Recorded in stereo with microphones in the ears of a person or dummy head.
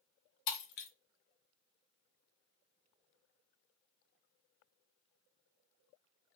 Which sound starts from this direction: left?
Breaking glass, at 0.5 s.